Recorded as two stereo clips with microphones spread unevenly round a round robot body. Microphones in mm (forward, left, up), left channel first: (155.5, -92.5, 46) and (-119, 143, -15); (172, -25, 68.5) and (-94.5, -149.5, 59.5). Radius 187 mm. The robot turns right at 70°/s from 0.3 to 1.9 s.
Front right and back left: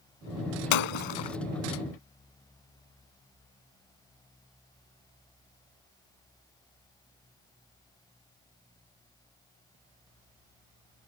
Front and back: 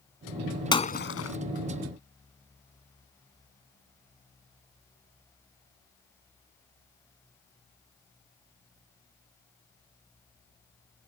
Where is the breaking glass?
50° right; by 1.4 s 5° right.